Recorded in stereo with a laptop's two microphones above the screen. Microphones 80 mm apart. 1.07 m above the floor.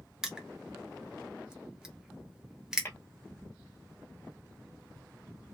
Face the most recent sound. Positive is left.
turn(degrees=30)  # may be behind; listen again after turning